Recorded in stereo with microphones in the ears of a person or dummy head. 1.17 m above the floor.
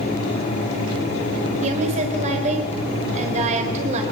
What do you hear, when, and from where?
1.6 s a woman speaking: 35° right (ahead or behind), 4 m